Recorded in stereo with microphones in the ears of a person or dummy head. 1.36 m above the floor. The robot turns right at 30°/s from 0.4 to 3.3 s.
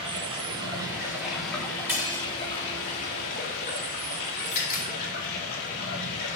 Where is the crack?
45° left (ahead or behind), 4.5 m.